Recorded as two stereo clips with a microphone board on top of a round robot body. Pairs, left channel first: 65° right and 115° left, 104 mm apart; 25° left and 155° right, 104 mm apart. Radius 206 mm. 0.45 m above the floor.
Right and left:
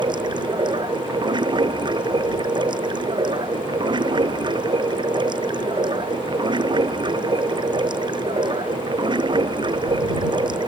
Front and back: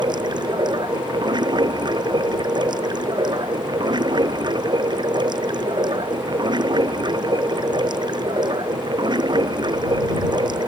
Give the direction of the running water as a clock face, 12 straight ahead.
7 o'clock.